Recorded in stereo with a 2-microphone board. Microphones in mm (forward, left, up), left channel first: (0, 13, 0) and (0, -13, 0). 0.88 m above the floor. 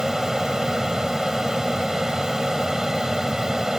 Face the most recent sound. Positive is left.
turn(degrees=-20)  # may be behind; listen again after turning